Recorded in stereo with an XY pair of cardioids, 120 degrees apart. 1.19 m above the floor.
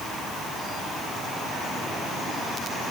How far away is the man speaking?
I don't hear a man speaking.